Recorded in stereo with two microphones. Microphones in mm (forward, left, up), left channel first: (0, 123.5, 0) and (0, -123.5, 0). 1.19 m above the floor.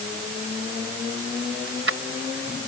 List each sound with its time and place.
1.7 s keys jangling: 60° right (ahead or behind)